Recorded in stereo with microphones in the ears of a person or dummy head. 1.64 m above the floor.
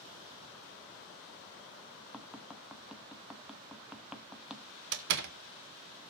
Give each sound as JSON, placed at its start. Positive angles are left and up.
{"t": 2.1, "sound": "tapping", "side_deg": 0, "distance_m": 1.2}
{"t": 4.9, "sound": "a door slam", "side_deg": -60, "distance_m": 0.9}